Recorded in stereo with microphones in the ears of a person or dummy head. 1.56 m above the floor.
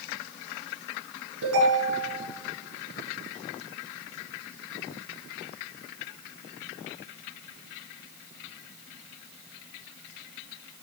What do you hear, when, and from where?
1.4 s a ringtone: 85° right, 9 m